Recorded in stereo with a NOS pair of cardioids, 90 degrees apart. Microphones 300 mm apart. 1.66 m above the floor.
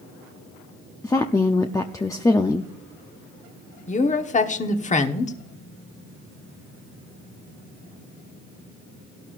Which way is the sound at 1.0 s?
10° left.